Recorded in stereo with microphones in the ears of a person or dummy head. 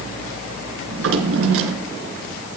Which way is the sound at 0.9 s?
75° right (ahead or behind).